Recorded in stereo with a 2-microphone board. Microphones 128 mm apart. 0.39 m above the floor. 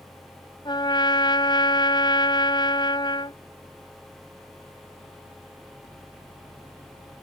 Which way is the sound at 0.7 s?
40° left (ahead or behind).